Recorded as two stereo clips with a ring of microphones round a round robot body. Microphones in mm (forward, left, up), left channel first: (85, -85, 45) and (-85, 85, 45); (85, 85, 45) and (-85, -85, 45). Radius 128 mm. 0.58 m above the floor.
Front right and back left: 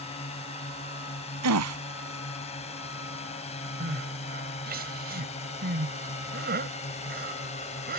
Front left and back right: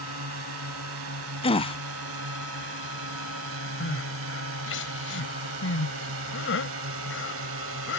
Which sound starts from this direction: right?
A drone, at 0.0 s.